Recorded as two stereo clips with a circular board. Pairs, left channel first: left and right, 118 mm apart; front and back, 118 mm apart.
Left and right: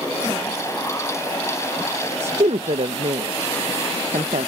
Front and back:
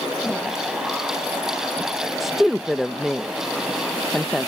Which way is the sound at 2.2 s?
90° right.